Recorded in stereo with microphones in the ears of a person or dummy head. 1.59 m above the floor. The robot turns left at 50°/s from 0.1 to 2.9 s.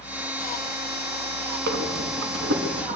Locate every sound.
1.7 s breathing: 65° right (ahead or behind), 4 m; by 3.0 s 40° right (ahead or behind), 4 m